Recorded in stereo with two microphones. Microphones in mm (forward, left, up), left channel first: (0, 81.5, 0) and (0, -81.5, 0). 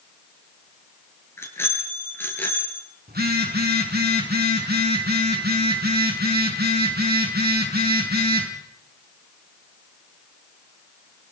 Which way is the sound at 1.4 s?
15° left (ahead or behind).